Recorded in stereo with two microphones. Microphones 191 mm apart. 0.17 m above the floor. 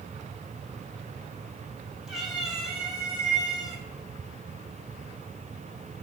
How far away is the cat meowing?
About 4 m.